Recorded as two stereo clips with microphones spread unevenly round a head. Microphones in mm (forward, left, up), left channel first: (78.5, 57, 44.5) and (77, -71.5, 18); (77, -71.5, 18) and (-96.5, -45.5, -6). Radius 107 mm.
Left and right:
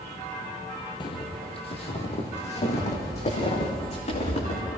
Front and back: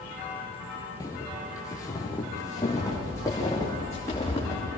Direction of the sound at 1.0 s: 60° left.